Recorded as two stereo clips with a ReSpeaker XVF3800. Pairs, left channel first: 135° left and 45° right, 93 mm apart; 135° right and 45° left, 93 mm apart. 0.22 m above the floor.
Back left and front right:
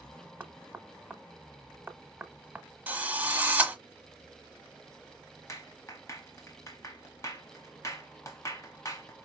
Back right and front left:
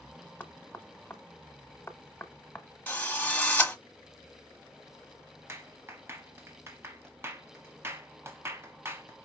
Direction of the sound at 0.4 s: 95° right.